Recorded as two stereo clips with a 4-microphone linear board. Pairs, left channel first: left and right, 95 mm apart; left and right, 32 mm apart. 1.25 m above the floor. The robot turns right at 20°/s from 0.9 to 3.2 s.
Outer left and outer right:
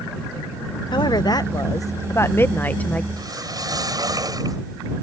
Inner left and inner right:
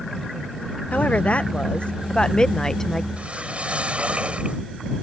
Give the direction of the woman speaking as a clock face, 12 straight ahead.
8 o'clock.